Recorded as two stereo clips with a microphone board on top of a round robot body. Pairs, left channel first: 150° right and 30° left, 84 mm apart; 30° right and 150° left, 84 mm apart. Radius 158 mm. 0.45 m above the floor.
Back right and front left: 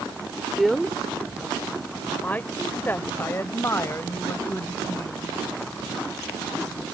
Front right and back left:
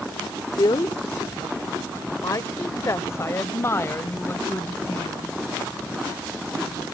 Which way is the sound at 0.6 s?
55° right.